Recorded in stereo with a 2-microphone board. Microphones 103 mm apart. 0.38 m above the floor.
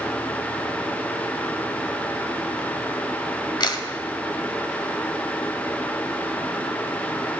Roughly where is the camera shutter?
Left.